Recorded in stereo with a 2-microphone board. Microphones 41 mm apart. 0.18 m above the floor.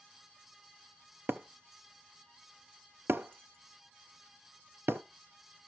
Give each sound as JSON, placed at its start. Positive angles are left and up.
{"t": 1.3, "sound": "breaking glass", "side_deg": -65, "distance_m": 0.5}